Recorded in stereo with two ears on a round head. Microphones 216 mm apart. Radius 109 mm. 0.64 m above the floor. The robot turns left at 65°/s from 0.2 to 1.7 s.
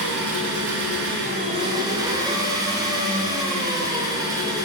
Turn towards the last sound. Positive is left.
turn(degrees=-165)